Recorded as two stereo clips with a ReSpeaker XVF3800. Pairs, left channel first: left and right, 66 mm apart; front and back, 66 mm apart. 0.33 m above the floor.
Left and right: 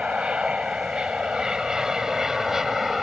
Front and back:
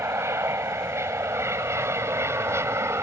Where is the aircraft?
155° right; by 3.0 s 170° right.